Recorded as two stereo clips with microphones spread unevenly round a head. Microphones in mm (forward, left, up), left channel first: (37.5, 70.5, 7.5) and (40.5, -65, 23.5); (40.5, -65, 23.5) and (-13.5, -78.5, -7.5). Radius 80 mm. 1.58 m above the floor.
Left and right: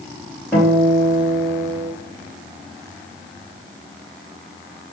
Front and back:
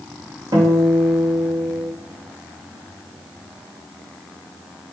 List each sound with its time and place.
0.5 s a guitar: 175° right, 3.5 m